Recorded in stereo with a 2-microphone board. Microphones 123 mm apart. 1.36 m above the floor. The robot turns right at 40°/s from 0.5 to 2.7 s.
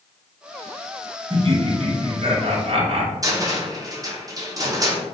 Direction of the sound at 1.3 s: 125° right.